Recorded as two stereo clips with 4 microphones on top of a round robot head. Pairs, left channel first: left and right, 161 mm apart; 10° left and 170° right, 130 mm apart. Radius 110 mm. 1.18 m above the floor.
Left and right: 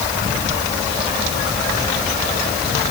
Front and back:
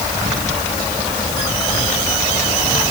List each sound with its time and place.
Only background noise.